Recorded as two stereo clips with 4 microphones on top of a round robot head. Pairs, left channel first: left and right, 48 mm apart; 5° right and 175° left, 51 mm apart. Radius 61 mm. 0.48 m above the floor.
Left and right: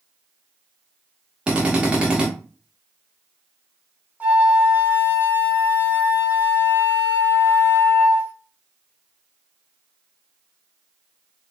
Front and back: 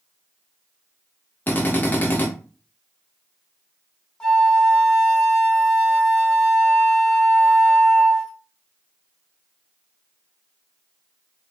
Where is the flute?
75° right, 1.1 m.